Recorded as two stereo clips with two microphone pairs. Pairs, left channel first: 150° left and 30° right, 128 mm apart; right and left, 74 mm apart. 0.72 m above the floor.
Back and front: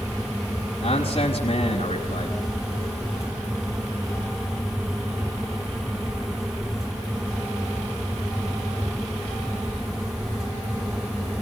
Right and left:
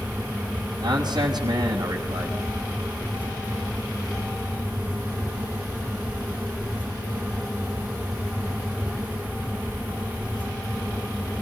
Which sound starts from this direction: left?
A man speaking, at 0.8 s.